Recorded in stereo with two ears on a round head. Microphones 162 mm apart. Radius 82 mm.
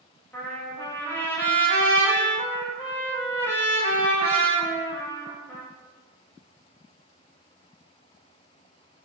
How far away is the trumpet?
About 0.8 m.